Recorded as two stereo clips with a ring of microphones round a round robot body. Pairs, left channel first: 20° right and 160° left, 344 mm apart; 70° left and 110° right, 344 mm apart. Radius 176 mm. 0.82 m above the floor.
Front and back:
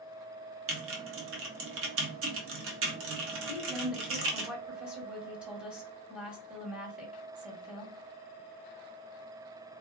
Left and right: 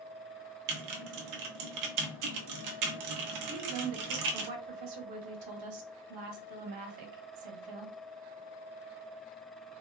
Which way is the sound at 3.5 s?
115° right.